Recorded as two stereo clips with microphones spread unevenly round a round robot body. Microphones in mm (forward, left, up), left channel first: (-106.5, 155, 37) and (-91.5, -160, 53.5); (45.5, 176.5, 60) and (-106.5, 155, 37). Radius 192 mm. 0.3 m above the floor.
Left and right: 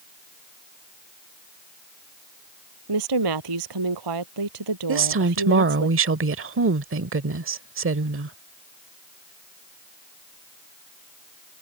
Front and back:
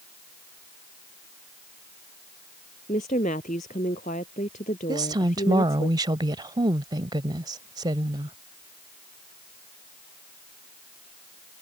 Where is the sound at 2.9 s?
60° right.